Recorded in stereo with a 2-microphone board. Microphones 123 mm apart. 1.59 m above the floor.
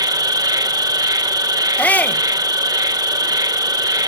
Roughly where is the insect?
Right.